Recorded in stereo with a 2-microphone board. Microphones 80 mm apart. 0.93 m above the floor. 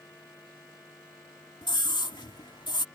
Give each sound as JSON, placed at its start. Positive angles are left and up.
{"t": 1.6, "sound": "a scream", "side_deg": 70}